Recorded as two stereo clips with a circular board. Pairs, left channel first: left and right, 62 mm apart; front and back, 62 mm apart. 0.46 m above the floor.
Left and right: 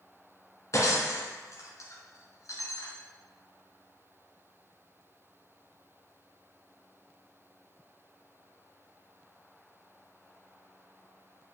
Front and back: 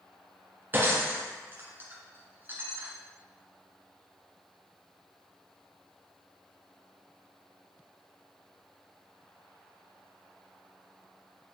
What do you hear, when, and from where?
0.7 s breaking glass: 125° left, 1.9 m